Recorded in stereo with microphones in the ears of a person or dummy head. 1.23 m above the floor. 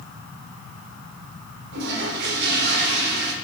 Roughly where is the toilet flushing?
Right.